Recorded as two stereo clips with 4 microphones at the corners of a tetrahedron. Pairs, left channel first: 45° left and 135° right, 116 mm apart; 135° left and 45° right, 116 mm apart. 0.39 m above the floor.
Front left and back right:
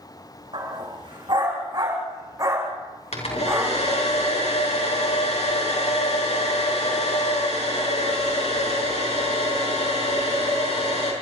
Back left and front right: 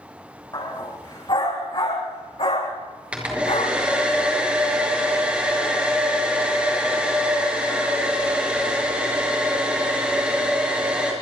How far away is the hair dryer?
About 6 m.